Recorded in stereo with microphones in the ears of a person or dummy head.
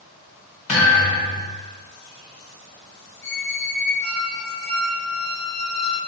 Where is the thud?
40° left (ahead or behind), 0.9 m.